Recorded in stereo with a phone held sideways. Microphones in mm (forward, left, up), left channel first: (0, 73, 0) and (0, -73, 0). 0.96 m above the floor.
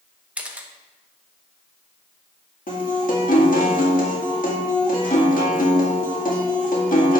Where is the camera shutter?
10° right (ahead or behind), 0.8 m.